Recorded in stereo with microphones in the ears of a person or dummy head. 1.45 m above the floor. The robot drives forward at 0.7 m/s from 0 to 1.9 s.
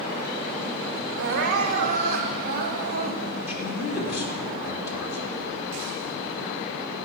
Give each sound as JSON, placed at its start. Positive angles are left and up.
{"t": 1.2, "sound": "crying", "side_deg": -60, "distance_m": 1.5}
{"t": 3.5, "sound": "a man speaking", "side_deg": 75, "distance_m": 4.0}